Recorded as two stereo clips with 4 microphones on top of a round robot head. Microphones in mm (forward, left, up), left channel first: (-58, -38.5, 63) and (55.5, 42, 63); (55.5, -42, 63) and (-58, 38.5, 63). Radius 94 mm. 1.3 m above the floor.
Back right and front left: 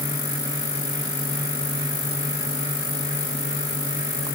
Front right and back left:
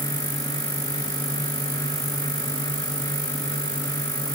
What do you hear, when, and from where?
Only background noise.